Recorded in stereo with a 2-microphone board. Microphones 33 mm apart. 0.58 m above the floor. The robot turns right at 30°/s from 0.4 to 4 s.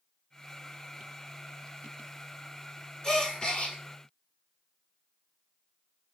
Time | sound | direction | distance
3.0 | a gasp | 20° left (ahead or behind) | 1.8 m